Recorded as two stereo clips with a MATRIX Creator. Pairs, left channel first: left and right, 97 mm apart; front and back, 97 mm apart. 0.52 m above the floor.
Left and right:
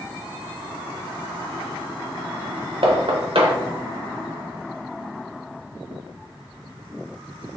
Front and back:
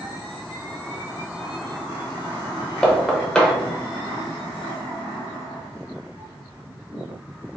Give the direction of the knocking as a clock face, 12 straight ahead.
3 o'clock.